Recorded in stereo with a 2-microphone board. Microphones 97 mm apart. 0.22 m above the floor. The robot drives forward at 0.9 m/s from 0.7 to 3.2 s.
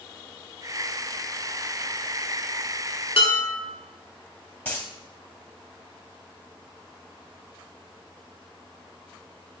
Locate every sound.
3.2 s dishes clattering: 65° left (ahead or behind), 1.9 m
4.7 s a dropped coin: 20° left (ahead or behind), 2 m